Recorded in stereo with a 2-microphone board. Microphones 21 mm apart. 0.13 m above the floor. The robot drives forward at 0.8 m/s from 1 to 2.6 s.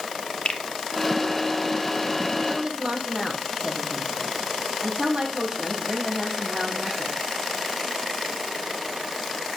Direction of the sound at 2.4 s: 35° right (ahead or behind).